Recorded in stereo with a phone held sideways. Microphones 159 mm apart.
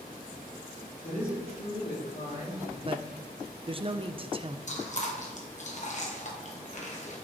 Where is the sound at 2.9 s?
35° right (ahead or behind), 0.5 m.